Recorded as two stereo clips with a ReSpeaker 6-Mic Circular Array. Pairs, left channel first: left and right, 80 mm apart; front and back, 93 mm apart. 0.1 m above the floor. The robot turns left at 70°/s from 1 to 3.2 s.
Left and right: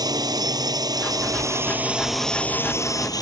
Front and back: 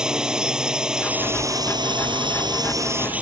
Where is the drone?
100° right; by 3.2 s 105° left.